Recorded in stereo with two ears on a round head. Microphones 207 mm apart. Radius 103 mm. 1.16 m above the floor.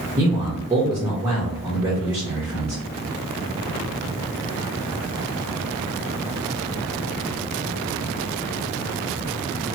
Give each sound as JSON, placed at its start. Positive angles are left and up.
{"t": 0.2, "sound": "a man speaking", "side_deg": -15, "distance_m": 0.8}